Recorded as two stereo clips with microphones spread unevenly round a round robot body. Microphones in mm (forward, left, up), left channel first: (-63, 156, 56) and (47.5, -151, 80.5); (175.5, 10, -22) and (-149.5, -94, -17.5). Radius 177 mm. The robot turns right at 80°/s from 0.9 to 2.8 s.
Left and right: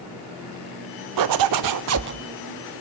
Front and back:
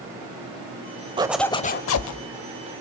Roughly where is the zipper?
Right.